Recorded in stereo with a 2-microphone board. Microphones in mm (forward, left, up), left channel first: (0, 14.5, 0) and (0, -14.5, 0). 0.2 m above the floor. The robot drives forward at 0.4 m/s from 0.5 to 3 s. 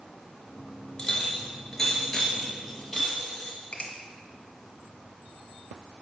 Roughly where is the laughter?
I don't hear laughter.